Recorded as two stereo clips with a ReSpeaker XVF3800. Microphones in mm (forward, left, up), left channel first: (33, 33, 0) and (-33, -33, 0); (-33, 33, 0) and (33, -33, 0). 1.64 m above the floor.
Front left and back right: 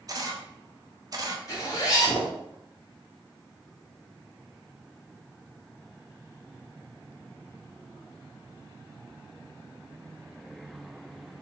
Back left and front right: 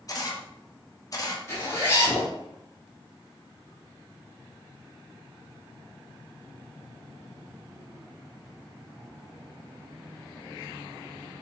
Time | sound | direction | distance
0.1 | a camera shutter | straight behind | 0.6 m
1.5 | a zipper | 85° left | 1.2 m